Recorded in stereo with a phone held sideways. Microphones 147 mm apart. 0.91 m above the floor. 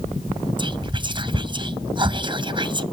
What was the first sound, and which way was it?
Whispering, 35° right (ahead or behind).